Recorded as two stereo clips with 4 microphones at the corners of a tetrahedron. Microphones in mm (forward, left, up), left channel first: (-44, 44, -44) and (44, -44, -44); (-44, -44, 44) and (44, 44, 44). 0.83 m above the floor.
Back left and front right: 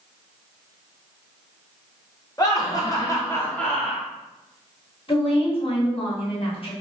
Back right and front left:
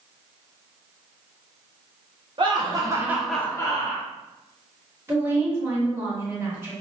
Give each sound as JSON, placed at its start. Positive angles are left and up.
{"t": 2.4, "sound": "laughter", "azimuth_deg": 85, "distance_m": 1.1}
{"t": 5.1, "sound": "a woman speaking", "azimuth_deg": 110, "distance_m": 1.2}